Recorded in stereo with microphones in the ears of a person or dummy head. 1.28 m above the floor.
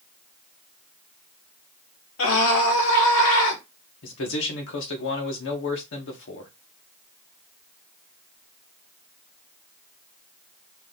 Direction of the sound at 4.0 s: 60° left (ahead or behind).